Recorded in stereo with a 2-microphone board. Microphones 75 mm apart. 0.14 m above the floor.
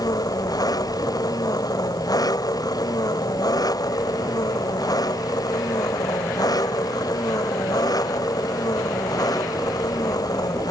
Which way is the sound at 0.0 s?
55° left (ahead or behind).